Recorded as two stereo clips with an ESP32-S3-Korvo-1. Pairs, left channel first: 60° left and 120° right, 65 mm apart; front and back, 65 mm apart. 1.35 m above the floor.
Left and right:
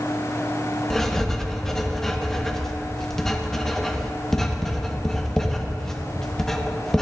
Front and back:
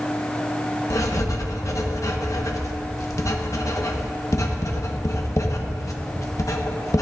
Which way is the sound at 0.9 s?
25° right.